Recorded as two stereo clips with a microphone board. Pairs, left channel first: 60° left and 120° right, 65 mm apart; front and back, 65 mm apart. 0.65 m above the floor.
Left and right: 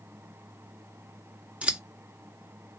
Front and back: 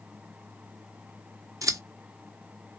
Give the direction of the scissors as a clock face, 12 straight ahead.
6 o'clock.